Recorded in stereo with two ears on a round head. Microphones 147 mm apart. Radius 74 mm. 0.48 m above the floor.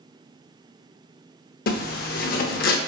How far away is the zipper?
About 0.6 m.